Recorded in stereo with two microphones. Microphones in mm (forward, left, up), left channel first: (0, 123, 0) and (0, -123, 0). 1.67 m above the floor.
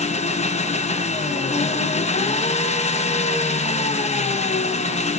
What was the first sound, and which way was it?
An engine running, 25° left (ahead or behind).